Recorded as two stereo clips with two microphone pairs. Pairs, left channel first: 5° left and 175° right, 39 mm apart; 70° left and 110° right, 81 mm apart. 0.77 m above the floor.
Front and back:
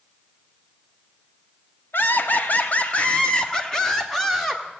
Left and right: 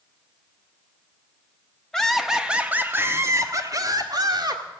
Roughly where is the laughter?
Ahead.